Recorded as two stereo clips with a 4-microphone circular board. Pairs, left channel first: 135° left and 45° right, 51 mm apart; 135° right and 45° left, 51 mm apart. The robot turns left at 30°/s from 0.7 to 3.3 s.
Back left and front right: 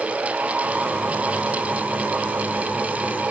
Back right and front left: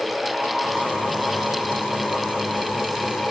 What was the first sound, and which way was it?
Only background noise.